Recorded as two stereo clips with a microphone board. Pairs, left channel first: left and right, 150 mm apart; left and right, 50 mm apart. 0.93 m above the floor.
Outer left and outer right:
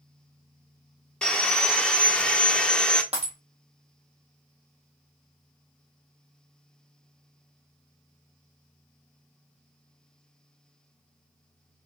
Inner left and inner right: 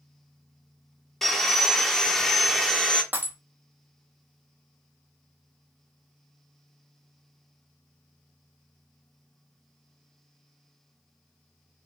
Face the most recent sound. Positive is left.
turn(degrees=-40)  # may be behind; listen again after turning